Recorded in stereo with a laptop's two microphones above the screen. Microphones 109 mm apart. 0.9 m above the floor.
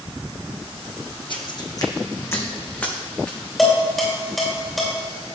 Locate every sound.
1.3 s footsteps: 50° left (ahead or behind), 1.7 m; by 3.4 s 10° left (ahead or behind), 4 m
3.6 s dishes clattering: centre (ahead or behind), 2.5 m